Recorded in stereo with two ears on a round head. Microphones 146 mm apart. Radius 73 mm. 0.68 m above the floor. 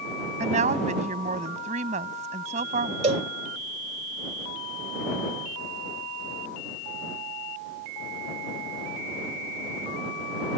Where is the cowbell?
40° right (ahead or behind).